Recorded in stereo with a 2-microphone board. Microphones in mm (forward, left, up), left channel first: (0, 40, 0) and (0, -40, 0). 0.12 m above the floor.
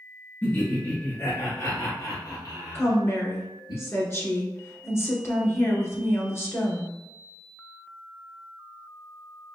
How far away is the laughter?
About 1.4 m.